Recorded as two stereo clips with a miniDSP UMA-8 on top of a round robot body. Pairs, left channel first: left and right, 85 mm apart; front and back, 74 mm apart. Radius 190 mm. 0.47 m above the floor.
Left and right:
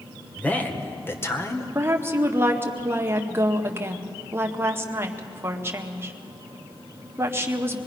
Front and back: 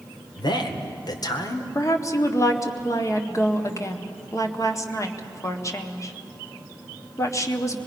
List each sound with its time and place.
0.4 s a man speaking: 15° left, 2 m; by 1.6 s 35° left, 1.8 m
1.8 s a woman speaking: 35° right, 2.0 m